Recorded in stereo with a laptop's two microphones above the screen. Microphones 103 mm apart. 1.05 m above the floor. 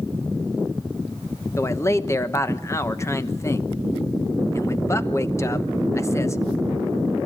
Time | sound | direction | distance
1.6 | a man speaking | 25° left (ahead or behind) | 1.1 m